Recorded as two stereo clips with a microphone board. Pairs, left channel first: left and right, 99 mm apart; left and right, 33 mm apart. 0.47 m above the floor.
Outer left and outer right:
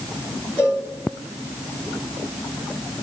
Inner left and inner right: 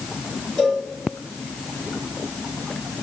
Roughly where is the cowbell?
Left.